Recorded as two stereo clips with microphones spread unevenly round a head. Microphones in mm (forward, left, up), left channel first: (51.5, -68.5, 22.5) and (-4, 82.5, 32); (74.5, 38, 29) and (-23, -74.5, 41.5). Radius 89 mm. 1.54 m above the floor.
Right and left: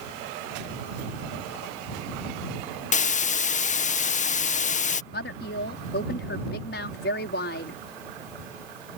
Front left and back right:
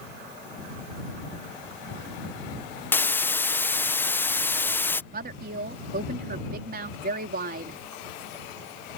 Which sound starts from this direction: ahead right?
A hiss, at 2.9 s.